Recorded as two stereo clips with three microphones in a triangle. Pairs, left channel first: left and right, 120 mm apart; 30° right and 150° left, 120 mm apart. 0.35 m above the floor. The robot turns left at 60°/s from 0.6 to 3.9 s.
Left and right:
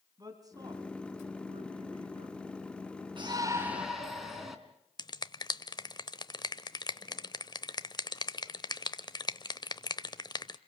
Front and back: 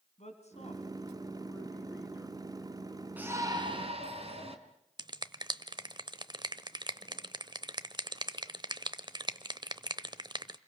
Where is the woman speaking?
35° right, 3 m; by 2.4 s 145° right, 3 m.